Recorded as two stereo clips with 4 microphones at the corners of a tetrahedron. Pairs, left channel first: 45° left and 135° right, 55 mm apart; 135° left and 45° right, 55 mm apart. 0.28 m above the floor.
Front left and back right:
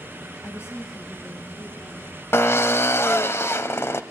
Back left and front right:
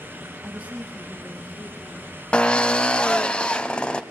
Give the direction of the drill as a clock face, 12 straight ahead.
10 o'clock.